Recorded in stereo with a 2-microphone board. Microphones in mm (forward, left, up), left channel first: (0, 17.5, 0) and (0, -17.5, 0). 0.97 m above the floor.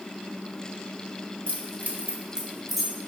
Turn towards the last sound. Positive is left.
turn(degrees=10)  # may be behind; listen again after turning